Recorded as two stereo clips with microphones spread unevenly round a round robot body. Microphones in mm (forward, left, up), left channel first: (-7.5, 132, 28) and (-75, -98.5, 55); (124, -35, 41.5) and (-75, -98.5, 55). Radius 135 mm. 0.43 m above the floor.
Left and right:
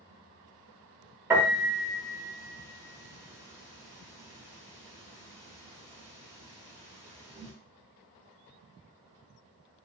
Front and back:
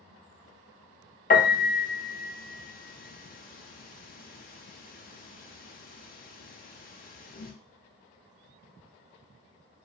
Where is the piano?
25° right, 0.6 m.